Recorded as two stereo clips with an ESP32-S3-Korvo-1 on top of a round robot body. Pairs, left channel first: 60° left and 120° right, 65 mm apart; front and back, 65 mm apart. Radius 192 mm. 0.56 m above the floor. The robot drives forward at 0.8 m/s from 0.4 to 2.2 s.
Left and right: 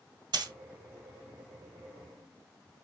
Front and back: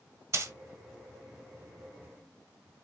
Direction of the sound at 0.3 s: 135° right.